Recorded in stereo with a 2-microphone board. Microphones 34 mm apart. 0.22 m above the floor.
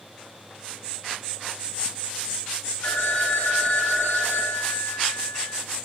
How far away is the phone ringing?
About 1.8 m.